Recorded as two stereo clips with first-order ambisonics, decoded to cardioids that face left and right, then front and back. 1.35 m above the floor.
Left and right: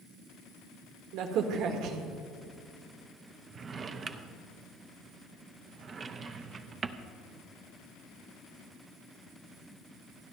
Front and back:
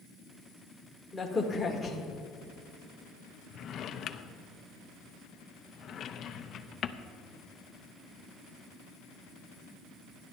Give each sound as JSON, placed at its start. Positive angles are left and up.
{"t": 1.1, "sound": "a crack", "azimuth_deg": -85, "distance_m": 1.5}
{"t": 3.5, "sound": "a drawer", "azimuth_deg": -35, "distance_m": 0.6}